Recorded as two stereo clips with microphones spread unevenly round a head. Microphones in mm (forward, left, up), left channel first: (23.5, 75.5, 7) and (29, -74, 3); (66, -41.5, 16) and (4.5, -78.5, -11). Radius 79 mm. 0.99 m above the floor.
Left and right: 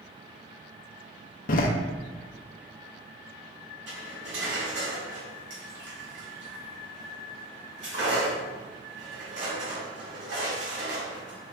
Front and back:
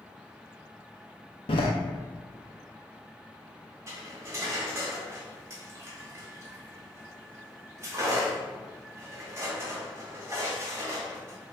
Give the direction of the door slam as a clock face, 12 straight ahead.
10 o'clock.